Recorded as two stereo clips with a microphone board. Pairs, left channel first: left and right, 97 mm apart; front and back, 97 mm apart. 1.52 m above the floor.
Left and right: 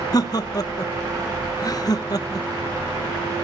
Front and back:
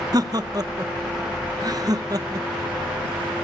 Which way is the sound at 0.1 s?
135° left.